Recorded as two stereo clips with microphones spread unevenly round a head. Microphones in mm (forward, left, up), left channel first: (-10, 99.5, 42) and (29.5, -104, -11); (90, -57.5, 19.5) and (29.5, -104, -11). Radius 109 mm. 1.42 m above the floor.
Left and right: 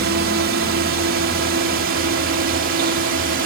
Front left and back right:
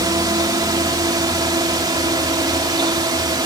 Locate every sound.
0.0 s a drone: 115° right; by 3.5 s 120° right